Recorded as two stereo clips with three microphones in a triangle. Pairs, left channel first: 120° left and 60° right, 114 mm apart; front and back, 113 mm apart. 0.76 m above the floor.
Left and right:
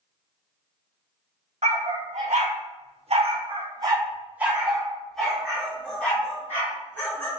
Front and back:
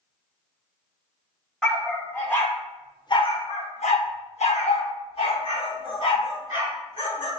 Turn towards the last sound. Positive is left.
turn(degrees=50)